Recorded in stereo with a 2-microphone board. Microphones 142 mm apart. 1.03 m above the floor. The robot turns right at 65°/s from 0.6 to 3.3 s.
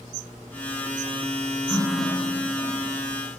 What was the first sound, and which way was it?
A running tap, 20° left.